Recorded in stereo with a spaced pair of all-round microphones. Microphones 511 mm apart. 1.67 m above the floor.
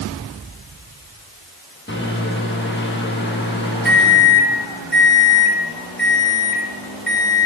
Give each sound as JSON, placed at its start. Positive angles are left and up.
{"t": 1.9, "sound": "a microwave", "side_deg": 20, "distance_m": 1.8}